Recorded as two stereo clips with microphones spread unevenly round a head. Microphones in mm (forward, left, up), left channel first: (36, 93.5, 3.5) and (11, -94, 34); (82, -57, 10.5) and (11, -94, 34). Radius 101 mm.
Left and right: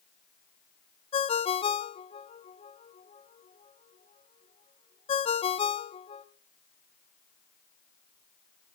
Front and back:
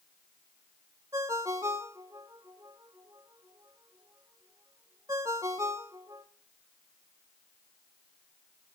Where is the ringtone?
150° left, 0.6 m.